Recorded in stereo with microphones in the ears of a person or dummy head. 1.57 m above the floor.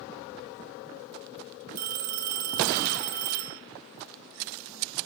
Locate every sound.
1.8 s a phone ringing: 45° right (ahead or behind), 1.2 m